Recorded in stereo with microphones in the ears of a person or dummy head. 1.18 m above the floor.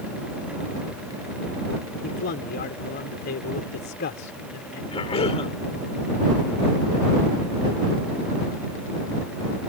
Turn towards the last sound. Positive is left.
turn(degrees=40)  # may be behind; listen again after turning